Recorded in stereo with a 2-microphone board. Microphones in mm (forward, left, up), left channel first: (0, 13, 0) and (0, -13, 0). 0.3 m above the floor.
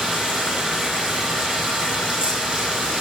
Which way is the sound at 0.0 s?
25° right (ahead or behind).